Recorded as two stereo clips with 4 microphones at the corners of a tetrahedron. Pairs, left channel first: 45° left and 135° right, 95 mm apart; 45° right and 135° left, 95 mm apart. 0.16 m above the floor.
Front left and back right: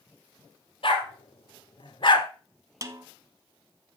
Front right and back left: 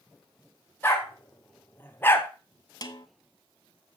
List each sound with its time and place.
0.8 s a dog barking: 25° left, 2.5 m; by 2.3 s 20° left, 1.0 m
2.8 s a snare drum: 85° right, 0.9 m